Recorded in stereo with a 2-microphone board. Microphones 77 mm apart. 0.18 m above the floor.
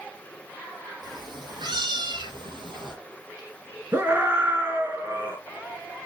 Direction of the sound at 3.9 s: 30° right (ahead or behind).